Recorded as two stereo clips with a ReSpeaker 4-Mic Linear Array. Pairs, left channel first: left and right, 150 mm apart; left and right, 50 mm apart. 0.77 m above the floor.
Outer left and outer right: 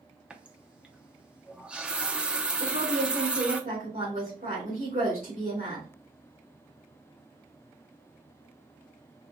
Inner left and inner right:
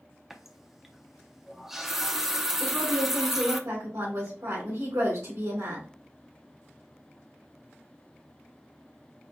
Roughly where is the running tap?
Centre.